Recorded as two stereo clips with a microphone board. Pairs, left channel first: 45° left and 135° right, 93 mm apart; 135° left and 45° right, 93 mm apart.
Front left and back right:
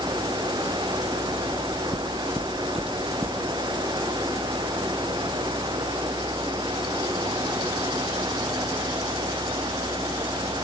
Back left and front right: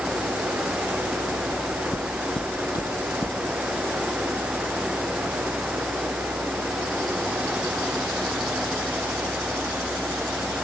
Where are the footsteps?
80° left, 2 m; by 3.4 s 175° left, 1.9 m.